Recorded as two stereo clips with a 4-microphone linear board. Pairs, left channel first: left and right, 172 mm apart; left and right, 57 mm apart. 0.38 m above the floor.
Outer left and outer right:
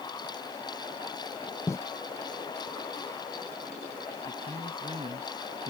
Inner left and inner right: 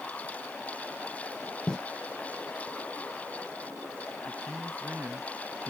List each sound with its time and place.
1.7 s footsteps: 15° left (ahead or behind)
4.2 s a man speaking: 35° right (ahead or behind)